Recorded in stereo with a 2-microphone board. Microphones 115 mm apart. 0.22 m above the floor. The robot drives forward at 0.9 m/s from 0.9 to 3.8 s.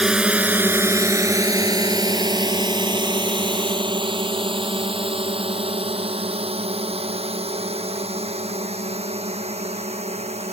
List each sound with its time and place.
0.0 s a drone: 5° right (ahead or behind); by 10.5 s 75° right (ahead or behind)